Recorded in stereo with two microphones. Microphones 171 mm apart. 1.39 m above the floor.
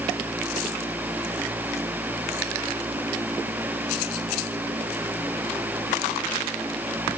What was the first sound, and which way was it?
Only background noise.